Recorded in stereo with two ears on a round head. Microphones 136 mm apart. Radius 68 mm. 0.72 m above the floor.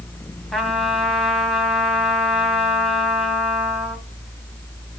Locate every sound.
0.5 s a trumpet: centre (ahead or behind), 3.5 m